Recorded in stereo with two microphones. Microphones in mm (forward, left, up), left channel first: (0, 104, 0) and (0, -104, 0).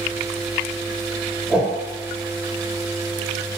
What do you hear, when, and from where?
1.5 s a whoosh: 5° right (ahead or behind), 0.6 m